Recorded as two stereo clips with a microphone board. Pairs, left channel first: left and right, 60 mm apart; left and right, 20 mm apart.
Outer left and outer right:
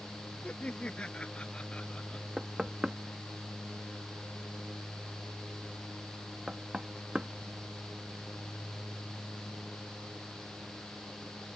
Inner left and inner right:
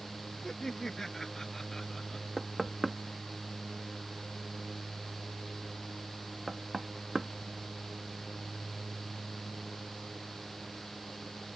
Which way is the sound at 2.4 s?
15° right (ahead or behind).